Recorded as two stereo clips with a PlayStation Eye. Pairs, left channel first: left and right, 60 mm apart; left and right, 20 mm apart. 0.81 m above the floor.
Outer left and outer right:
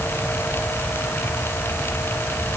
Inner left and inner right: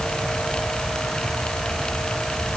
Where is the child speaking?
No child speaking in this recording.